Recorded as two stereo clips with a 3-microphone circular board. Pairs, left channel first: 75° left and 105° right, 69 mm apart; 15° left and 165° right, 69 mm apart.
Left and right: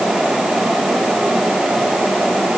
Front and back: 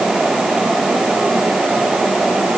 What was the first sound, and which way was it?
Only background noise.